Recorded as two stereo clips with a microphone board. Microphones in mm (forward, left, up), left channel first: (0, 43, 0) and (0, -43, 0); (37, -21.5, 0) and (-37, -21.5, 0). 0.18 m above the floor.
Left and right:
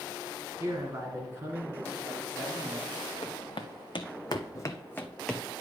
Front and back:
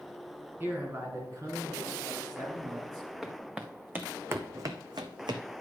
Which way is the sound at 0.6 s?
130° right.